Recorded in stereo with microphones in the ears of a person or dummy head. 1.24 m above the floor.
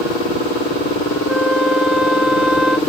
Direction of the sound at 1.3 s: 5° right (ahead or behind).